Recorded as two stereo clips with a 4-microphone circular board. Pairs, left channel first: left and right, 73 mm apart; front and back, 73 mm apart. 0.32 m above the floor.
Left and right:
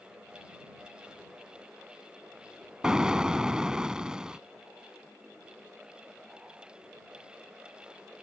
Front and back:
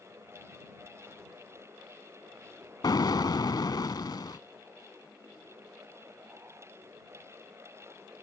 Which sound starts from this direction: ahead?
An explosion, at 2.8 s.